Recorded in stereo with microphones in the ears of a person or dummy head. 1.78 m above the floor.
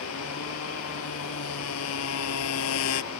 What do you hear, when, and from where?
0.0 s a motorcycle: 85° left